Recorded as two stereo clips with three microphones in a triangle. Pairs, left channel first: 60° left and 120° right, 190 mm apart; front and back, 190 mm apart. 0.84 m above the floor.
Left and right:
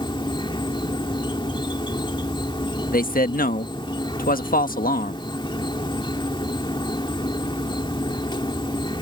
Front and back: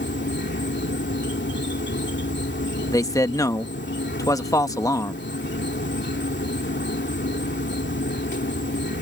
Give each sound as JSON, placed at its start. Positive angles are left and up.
{"t": 0.0, "sound": "an insect", "azimuth_deg": -5}
{"t": 2.9, "sound": "a man speaking", "azimuth_deg": 65}